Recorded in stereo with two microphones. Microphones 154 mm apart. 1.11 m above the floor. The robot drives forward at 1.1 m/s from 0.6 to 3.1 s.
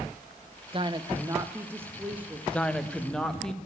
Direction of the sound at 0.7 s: 35° right (ahead or behind).